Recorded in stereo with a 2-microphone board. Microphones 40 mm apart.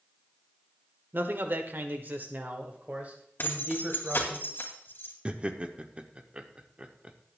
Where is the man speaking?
55° right (ahead or behind), 1.2 m; by 4.4 s 30° right (ahead or behind), 2.5 m.